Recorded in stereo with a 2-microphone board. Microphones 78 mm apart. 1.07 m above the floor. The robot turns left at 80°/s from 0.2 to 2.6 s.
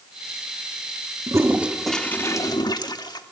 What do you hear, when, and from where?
1.3 s a toilet flushing: 135° right, 1.3 m; by 3.2 s 120° left, 1.3 m